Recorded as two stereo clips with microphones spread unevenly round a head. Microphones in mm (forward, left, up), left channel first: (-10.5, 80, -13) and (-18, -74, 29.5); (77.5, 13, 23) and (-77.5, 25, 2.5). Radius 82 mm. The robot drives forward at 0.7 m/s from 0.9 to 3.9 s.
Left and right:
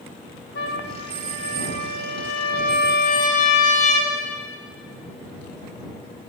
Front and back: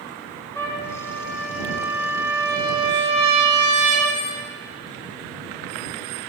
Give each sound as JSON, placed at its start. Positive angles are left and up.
{"t": 0.6, "sound": "a trumpet", "azimuth_deg": 70, "distance_m": 1.8}